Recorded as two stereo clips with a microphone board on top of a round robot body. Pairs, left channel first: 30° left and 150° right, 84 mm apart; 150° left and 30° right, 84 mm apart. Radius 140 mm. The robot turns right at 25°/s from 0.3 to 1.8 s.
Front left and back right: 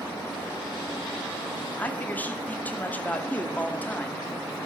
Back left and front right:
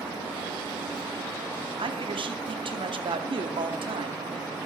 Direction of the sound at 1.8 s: 40° right.